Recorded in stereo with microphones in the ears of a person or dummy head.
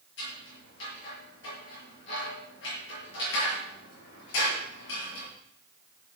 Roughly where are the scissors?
Left.